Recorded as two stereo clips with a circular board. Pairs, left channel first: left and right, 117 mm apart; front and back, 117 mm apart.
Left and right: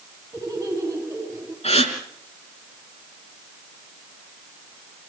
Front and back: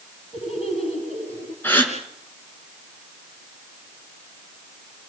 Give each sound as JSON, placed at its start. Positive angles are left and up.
{"t": 0.3, "sound": "laughter", "azimuth_deg": -25, "distance_m": 7.0}
{"t": 1.6, "sound": "a gasp", "azimuth_deg": 70, "distance_m": 3.5}